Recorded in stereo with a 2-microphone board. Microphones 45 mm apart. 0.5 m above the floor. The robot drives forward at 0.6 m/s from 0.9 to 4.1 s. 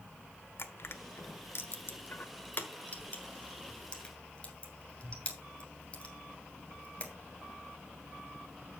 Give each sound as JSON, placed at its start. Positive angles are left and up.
{"t": 0.6, "sound": "crushing", "side_deg": 60, "distance_m": 1.0}